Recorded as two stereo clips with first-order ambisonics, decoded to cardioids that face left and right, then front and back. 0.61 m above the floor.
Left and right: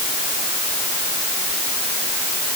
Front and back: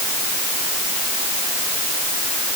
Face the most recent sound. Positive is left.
No sound to turn to.